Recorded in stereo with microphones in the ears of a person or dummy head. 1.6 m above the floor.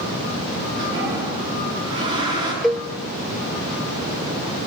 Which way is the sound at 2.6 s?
Centre (ahead or behind).